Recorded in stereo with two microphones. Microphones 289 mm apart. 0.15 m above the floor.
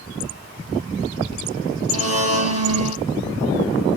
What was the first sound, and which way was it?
A blender, 60° right (ahead or behind).